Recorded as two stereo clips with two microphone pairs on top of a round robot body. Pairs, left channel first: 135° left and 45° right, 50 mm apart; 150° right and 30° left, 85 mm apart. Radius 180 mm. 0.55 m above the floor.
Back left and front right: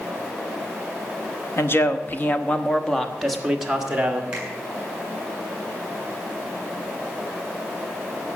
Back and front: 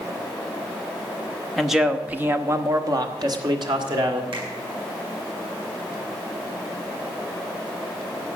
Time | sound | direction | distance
1.6 | a man speaking | 115° left | 1.6 m
4.3 | a finger snap | 25° left | 7.5 m